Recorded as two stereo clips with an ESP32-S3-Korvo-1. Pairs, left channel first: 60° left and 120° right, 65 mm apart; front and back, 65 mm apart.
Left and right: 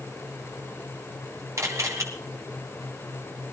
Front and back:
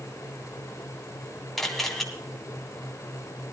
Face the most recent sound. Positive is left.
turn(degrees=-85)